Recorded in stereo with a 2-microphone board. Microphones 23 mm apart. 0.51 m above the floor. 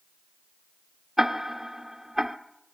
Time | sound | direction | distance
1.2 | ticking | 5° right (ahead or behind) | 0.8 m